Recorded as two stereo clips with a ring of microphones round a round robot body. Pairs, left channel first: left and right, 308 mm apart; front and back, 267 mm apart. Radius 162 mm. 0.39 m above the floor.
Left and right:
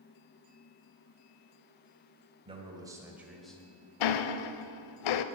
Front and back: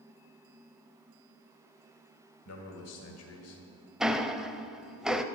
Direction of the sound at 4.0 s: 90° left.